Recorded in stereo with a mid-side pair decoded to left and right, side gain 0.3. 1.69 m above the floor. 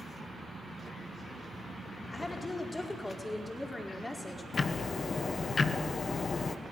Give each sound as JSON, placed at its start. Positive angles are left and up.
{"t": 2.1, "sound": "a woman speaking", "azimuth_deg": 30, "distance_m": 4.5}
{"t": 4.5, "sound": "ticking", "azimuth_deg": 55, "distance_m": 1.4}